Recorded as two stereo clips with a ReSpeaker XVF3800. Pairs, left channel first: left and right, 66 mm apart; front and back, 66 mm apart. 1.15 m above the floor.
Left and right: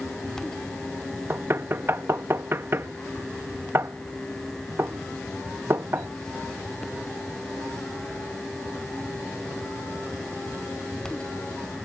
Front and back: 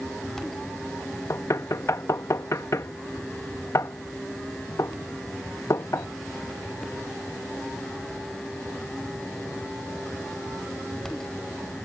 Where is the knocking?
40° right.